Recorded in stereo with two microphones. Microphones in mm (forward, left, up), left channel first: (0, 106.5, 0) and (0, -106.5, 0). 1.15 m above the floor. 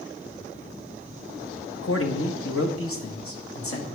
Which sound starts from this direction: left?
A man speaking, at 1.8 s.